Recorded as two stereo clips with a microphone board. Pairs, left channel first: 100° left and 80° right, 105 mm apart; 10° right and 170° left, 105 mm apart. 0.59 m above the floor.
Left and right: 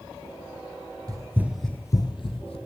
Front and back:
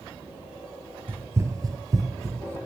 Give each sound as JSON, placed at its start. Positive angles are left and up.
{"t": 1.1, "sound": "running footsteps", "azimuth_deg": -120, "distance_m": 0.9}